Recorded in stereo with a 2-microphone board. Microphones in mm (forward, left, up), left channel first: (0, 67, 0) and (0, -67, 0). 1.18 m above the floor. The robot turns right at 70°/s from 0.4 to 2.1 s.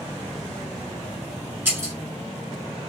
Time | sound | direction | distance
1.6 | breaking glass | 15° right (ahead or behind) | 1.3 m